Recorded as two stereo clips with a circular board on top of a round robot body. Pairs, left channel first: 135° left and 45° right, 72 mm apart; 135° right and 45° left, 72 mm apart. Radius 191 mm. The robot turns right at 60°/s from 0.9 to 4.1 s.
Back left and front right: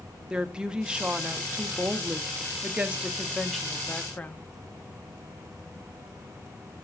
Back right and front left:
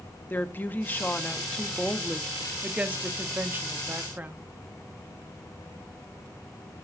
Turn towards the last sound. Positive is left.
turn(degrees=80)